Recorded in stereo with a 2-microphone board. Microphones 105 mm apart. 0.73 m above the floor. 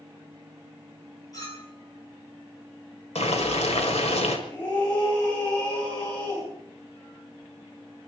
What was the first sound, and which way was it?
A clink, 35° left (ahead or behind).